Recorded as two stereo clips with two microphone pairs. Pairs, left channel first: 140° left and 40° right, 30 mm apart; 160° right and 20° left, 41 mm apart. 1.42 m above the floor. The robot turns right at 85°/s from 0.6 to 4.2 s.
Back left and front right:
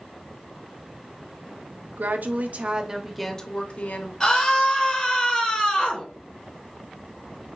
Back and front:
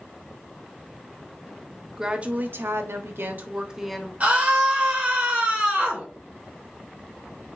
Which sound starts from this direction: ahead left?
A scream, at 4.2 s.